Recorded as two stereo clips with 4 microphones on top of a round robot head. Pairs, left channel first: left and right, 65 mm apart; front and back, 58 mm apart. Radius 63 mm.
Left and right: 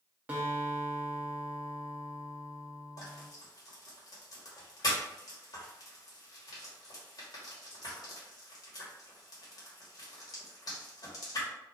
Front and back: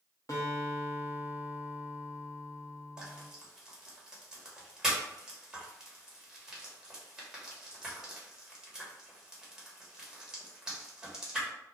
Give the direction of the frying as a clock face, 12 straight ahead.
9 o'clock.